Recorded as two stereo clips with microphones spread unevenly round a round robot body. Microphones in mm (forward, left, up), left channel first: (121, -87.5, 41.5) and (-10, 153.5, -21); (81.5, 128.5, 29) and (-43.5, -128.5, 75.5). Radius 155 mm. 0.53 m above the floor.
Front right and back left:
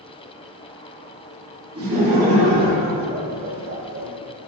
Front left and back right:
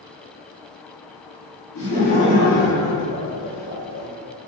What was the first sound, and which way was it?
Laughter, 65° left.